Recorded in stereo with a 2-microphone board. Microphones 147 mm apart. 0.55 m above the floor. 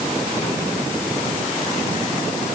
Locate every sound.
Only background noise.